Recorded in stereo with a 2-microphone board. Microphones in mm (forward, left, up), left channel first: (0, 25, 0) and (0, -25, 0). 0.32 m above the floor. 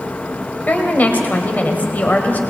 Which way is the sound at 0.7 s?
35° left (ahead or behind).